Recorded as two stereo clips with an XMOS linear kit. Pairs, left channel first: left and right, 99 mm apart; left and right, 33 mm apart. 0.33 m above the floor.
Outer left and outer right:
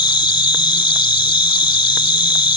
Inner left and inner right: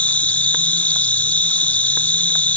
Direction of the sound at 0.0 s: 55° left (ahead or behind).